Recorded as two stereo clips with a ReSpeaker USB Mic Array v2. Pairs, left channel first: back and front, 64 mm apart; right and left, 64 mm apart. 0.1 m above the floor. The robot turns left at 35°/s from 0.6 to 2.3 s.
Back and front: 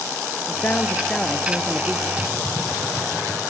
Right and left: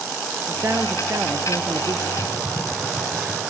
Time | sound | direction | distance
0.5 | a man speaking | 130° left | 1.6 m
2.2 | typing on a keyboard | 85° right | 3.5 m